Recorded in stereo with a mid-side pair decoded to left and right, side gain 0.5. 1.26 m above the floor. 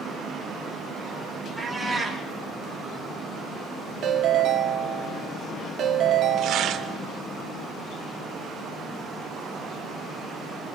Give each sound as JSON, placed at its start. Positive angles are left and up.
{"t": 1.6, "sound": "a cat meowing", "azimuth_deg": 0, "distance_m": 6.0}
{"t": 4.0, "sound": "a ringtone", "azimuth_deg": -60, "distance_m": 1.9}
{"t": 6.4, "sound": "tearing paper", "azimuth_deg": -65, "distance_m": 1.4}